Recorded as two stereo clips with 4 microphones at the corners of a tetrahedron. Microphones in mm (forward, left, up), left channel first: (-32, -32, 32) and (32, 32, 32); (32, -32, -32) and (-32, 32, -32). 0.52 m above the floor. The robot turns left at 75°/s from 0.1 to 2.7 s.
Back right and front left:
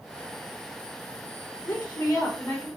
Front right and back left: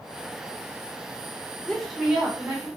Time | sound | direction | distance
1.6 | a woman speaking | 120° right | 1.3 m